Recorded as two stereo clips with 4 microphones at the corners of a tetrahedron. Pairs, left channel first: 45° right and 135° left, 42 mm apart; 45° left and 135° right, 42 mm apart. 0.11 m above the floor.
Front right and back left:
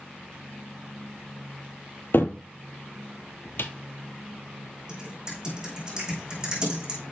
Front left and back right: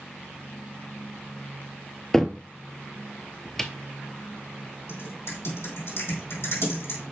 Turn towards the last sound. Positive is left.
turn(degrees=65)